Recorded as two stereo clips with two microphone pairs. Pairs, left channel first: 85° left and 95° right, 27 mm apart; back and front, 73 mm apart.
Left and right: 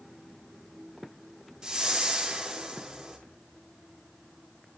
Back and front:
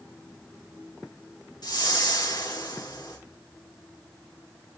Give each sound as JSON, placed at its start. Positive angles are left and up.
{"t": 1.6, "sound": "a whoosh", "azimuth_deg": -160, "distance_m": 4.5}